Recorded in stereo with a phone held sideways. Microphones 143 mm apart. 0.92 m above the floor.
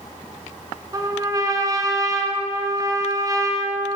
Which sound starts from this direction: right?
A trumpet, at 0.9 s.